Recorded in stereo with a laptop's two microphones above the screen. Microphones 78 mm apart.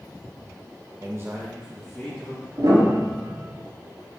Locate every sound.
1.0 s a man speaking: 45° right (ahead or behind), 0.7 m; by 2.5 s 10° left (ahead or behind), 1.6 m
2.6 s a piano: 55° right (ahead or behind), 3 m